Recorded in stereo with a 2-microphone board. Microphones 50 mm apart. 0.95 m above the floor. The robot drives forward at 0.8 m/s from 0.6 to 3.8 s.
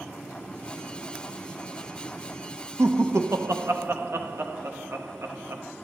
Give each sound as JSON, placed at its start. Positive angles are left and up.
{"t": 2.8, "sound": "laughter", "side_deg": -60, "distance_m": 0.8}